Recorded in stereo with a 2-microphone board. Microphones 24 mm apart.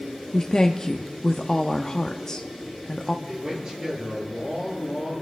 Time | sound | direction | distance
0.3 | a woman speaking | 25° left (ahead or behind) | 0.7 m
3.2 | a man speaking | 25° right (ahead or behind) | 9.5 m